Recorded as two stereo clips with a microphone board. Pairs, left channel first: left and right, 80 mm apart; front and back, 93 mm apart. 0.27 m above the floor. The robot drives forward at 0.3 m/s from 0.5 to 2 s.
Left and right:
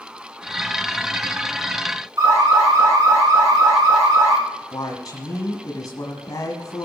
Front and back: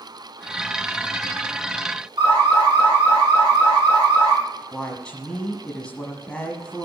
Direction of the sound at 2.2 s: 135° right.